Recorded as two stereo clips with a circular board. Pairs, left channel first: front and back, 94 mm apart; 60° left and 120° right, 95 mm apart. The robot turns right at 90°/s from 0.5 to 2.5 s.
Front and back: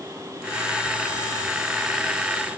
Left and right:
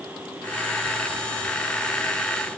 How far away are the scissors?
I don't hear scissors.